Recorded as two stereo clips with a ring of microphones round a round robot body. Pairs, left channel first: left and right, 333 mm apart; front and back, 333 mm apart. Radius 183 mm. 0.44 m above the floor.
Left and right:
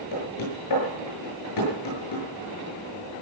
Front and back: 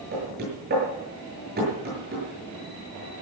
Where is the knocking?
115° left, 8 m.